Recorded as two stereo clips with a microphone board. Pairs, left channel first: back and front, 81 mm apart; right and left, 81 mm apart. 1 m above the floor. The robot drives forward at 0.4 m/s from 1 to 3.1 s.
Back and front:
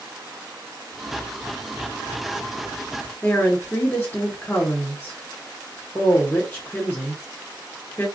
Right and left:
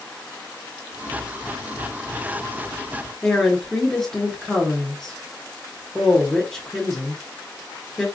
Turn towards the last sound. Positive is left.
turn(degrees=-165)